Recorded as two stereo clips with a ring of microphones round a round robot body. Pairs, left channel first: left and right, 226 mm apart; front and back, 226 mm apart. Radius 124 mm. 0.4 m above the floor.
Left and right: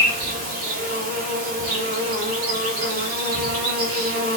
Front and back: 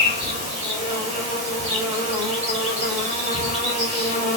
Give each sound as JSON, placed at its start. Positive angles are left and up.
{"t": 0.0, "sound": "an insect", "azimuth_deg": -125, "distance_m": 1.3}